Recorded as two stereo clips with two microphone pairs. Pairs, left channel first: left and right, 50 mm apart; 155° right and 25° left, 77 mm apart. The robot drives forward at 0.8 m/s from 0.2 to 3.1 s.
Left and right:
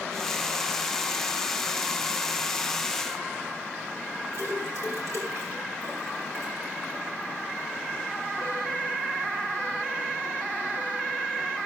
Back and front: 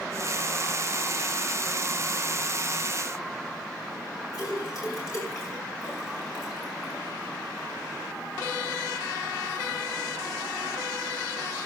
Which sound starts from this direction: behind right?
A splash, at 4.3 s.